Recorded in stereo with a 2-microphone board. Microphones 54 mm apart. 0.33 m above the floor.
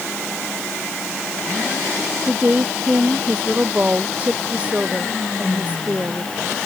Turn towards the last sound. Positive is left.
turn(degrees=-25)  # may be behind; listen again after turning